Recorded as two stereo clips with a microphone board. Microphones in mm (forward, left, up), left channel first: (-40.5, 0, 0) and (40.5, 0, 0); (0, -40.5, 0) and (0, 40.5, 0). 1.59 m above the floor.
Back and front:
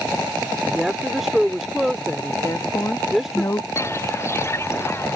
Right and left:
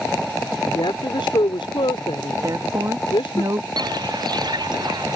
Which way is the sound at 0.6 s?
85° right.